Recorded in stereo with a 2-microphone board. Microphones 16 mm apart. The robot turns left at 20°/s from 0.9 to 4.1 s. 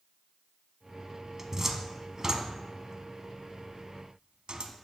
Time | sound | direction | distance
1.4 | a cupboard door | 25° right (ahead or behind) | 0.8 m